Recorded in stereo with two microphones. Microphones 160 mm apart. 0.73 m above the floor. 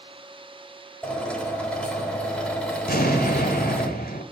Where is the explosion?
80° left, 2 m.